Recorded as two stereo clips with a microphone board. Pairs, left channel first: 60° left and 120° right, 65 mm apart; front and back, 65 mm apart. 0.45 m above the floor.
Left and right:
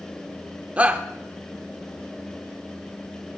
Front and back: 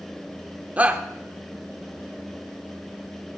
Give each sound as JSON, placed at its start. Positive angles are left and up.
{"t": 0.8, "sound": "a shout", "azimuth_deg": -155, "distance_m": 0.7}